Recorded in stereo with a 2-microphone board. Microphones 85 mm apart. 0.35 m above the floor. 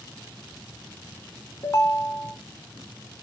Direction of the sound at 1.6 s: 40° left (ahead or behind).